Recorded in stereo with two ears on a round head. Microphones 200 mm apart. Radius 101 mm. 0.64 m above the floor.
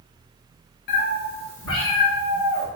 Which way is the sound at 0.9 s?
50° left (ahead or behind).